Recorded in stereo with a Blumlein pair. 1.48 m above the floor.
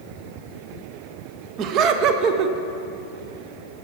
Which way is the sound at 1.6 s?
35° right.